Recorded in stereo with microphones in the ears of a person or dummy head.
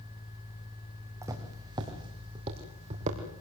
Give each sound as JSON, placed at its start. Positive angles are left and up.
{"t": 1.2, "sound": "footsteps", "side_deg": -20, "distance_m": 5.0}